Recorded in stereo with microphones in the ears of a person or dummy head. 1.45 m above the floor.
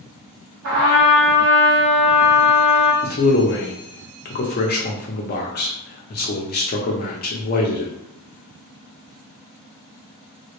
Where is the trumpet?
75° right (ahead or behind), 1.0 m.